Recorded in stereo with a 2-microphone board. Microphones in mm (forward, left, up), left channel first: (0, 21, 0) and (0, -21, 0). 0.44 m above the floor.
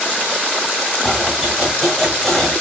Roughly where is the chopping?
Centre.